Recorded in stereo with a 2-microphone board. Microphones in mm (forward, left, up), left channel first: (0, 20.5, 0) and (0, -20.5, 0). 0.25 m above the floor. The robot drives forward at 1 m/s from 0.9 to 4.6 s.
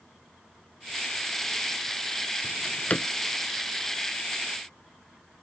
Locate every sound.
2.4 s a drawer: 65° left (ahead or behind); by 3.1 s 35° left (ahead or behind)